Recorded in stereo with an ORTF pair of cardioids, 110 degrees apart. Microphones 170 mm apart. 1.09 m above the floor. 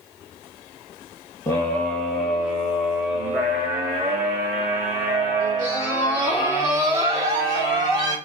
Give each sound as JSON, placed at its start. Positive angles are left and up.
{"t": 1.5, "sound": "a scream", "azimuth_deg": 15, "distance_m": 1.3}